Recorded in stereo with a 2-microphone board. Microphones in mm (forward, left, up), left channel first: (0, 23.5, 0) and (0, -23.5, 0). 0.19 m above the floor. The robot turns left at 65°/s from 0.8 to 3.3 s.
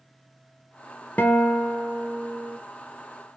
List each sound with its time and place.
1.2 s a guitar: 35° left, 0.7 m; by 2.6 s 55° right, 0.7 m